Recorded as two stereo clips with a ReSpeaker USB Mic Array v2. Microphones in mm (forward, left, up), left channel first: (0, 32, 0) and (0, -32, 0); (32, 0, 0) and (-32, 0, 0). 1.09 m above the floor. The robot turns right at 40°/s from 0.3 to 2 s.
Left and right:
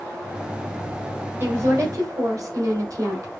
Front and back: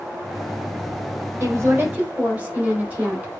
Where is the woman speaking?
140° right, 4 m; by 3.3 s 115° right, 4 m.